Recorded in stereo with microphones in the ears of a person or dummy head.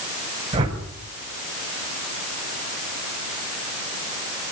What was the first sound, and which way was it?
A whoosh, 30° right (ahead or behind).